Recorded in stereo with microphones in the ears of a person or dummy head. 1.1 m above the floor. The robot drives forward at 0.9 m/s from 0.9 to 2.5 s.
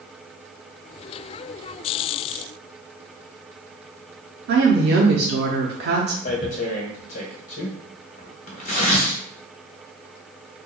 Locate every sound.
4.5 s a woman speaking: 45° right (ahead or behind), 0.6 m
6.2 s tearing paper: 40° left (ahead or behind), 0.8 m